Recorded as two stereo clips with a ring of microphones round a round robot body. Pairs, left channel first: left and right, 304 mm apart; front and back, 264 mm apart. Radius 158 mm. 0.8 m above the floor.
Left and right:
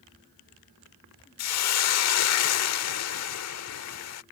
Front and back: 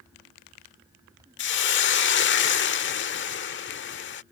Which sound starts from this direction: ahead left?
A hiss, at 1.4 s.